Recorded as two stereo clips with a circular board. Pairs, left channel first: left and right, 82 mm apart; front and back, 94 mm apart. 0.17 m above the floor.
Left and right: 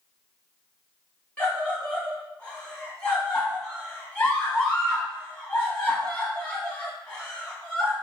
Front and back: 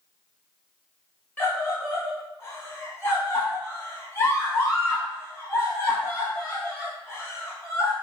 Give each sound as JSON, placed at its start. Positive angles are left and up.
{"t": 1.4, "sound": "a scream", "azimuth_deg": 30, "distance_m": 1.4}